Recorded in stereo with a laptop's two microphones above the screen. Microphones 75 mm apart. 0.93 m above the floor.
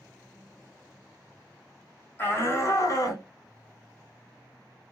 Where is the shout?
30° left (ahead or behind), 1.3 m; by 3.2 s 55° left (ahead or behind), 1.4 m.